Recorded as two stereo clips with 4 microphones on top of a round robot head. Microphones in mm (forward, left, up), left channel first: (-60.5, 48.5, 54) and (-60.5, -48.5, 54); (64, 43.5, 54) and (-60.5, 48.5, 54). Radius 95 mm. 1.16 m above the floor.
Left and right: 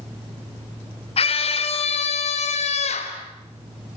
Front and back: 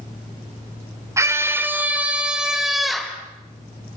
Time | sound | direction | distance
1.2 | a scream | 110° left | 3.5 m